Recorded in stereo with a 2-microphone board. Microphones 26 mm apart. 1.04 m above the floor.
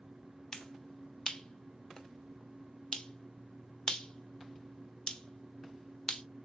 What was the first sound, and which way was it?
A finger snap, 30° left (ahead or behind).